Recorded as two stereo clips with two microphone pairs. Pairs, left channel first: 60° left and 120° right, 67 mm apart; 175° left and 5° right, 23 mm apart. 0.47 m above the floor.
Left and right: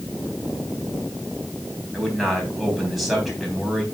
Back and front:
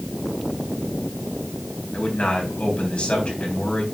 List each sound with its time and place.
1.9 s a man speaking: 150° left, 3.5 m